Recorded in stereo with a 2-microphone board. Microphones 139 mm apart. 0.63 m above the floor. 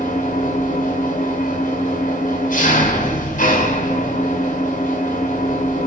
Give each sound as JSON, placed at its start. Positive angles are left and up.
{"t": 0.0, "sound": "an engine running", "side_deg": 70, "distance_m": 2.0}